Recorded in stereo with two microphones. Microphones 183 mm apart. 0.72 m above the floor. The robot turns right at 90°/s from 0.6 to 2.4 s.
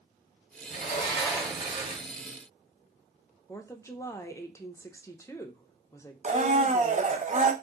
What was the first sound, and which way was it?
A sliding door, 120° left.